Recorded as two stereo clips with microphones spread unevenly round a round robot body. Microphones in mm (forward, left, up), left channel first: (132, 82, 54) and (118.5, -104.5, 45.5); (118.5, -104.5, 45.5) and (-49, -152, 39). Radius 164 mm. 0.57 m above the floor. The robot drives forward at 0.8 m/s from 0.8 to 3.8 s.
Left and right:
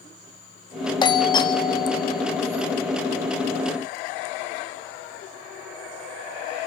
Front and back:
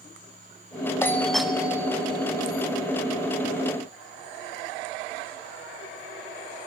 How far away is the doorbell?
About 1.5 m.